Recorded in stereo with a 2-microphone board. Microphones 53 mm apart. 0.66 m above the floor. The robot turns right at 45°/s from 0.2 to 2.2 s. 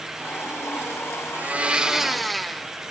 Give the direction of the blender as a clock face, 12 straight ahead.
1 o'clock.